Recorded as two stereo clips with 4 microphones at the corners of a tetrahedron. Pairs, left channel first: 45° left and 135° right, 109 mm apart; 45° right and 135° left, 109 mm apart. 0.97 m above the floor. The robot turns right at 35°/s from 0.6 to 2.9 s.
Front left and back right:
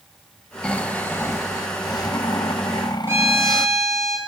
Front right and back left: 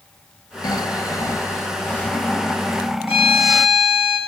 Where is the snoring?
30° right, 0.7 m; by 3.7 s 50° left, 0.7 m.